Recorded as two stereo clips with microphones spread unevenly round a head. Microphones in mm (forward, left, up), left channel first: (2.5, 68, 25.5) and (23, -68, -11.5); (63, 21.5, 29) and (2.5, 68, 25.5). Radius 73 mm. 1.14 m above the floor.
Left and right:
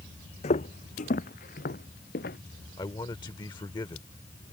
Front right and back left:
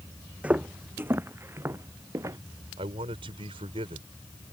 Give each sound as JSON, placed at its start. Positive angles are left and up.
{"t": 0.4, "sound": "footsteps", "azimuth_deg": 70}
{"t": 2.8, "sound": "a man speaking", "azimuth_deg": 160}